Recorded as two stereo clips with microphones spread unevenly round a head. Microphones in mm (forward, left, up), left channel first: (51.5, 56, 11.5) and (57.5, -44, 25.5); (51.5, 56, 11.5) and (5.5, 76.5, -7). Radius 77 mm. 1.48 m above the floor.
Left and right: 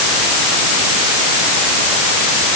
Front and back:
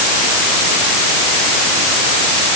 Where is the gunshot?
I don't hear a gunshot.